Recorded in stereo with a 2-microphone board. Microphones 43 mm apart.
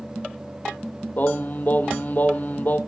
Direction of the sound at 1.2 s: 40° left (ahead or behind).